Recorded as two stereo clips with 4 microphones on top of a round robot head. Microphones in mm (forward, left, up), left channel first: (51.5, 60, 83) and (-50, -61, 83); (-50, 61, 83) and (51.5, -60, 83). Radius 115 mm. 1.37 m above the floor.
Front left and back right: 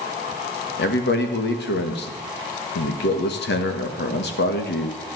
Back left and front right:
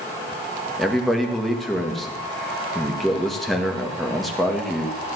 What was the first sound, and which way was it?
A man speaking, 40° left.